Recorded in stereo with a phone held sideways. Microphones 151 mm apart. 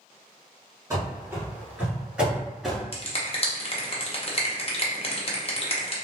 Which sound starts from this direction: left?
A finger snap, at 2.9 s.